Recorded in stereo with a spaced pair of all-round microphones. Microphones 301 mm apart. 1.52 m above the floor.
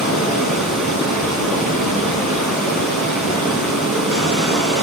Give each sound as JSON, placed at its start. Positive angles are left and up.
{"t": 0.0, "sound": "running water", "side_deg": -70, "distance_m": 2.0}